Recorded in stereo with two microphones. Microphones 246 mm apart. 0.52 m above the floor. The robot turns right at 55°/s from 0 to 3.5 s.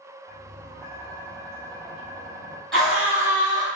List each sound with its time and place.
0.3 s tapping: 55° right, 1.6 m; by 2.6 s 70° left, 1.6 m
2.7 s a scream: 175° left, 1.5 m; by 3.7 s 140° right, 1.5 m